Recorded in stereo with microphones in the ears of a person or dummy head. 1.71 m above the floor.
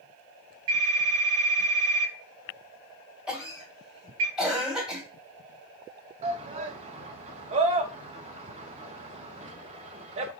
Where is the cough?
5° right (ahead or behind), 2 m.